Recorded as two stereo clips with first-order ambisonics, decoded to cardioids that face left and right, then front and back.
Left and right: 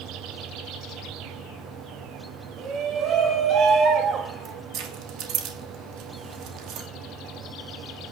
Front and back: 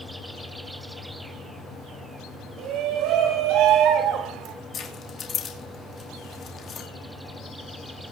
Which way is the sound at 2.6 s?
145° right.